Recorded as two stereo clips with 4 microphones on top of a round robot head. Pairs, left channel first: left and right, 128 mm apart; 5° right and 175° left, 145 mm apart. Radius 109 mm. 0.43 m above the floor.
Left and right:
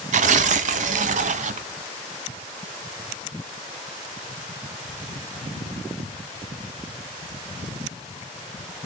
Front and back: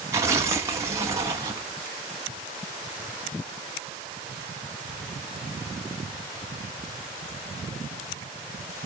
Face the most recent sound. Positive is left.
turn(degrees=-110)